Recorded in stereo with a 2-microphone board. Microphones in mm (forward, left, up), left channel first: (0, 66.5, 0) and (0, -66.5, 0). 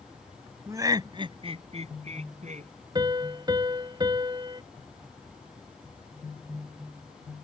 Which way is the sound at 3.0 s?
30° right (ahead or behind).